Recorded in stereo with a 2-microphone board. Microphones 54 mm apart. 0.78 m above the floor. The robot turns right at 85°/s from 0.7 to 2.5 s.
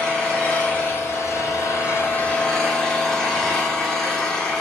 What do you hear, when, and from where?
0.0 s an engine running: 20° left, 8 m; by 4.6 s 175° left, 8 m